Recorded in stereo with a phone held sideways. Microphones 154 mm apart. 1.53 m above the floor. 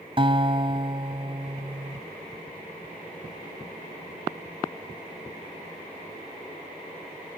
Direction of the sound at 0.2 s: 35° right (ahead or behind).